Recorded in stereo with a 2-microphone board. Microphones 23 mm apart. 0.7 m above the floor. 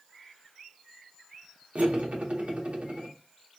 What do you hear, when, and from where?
1.8 s cutlery clinking: 85° right, 0.8 m